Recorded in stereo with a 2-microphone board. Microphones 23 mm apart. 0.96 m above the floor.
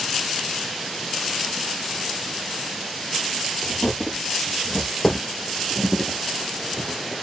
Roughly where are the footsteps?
Centre.